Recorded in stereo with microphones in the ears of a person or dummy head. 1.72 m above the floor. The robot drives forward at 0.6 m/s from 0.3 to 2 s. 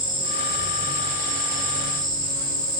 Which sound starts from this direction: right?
An insect, at 0.0 s.